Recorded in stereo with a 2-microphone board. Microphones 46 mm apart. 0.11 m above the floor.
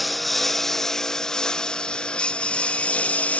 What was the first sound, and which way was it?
A lawn mower, centre (ahead or behind).